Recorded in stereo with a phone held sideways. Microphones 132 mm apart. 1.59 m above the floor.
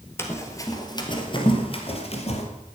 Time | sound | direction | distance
0.2 | running footsteps | 20° left (ahead or behind) | 2.5 m